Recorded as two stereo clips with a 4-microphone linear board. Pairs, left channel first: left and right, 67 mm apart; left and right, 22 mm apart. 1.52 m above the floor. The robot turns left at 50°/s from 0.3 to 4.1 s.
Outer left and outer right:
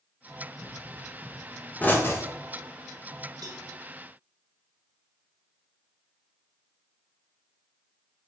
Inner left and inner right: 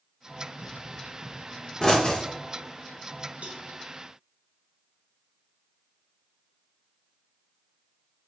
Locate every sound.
0.6 s a pop: 40° right (ahead or behind), 1.0 m; by 2.3 s 50° left (ahead or behind), 1.0 m
3.4 s a cowbell: 85° right, 0.7 m; by 3.6 s 75° right (ahead or behind), 0.7 m